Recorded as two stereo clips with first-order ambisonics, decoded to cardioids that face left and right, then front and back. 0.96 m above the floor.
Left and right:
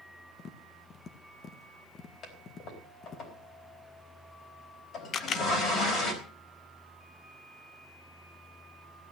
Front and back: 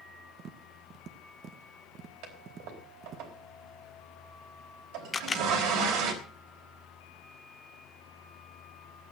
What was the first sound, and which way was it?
Tapping, 140° left.